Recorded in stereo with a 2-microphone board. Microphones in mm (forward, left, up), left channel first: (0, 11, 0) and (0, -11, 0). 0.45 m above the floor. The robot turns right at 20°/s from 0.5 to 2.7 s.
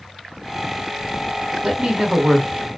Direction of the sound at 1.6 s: 35° right (ahead or behind).